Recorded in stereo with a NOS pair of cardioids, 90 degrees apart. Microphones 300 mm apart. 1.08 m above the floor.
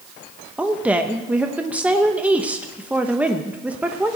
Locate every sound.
0.6 s a woman speaking: 5° right, 0.9 m